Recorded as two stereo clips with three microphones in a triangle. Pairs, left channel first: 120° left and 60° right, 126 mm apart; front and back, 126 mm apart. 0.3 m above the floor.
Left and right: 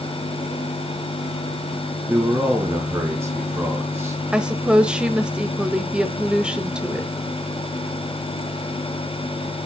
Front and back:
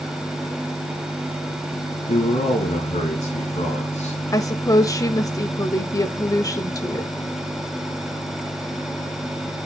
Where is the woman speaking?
15° left, 1.0 m.